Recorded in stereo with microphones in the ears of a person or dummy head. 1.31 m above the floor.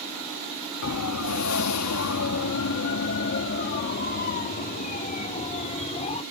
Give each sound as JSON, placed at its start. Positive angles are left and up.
{"t": 0.8, "sound": "a siren", "side_deg": 80}